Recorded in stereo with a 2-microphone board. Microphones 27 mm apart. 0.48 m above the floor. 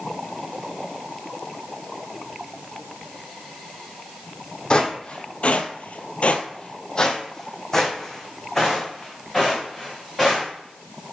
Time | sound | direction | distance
4.7 | footsteps | 30° left (ahead or behind) | 1.4 m